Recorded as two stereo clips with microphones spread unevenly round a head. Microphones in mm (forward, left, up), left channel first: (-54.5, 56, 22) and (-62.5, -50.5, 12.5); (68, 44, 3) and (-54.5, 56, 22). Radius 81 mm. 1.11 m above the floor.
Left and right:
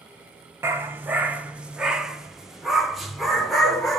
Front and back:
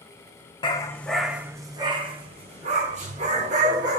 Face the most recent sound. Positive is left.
turn(degrees=170)